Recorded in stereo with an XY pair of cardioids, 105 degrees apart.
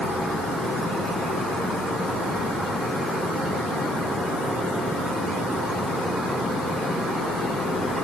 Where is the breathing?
I don't hear breathing.